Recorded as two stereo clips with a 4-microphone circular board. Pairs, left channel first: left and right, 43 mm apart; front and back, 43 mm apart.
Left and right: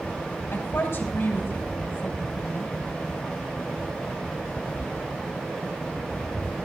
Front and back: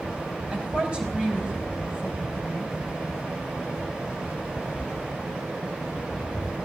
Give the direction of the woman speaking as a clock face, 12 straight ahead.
8 o'clock.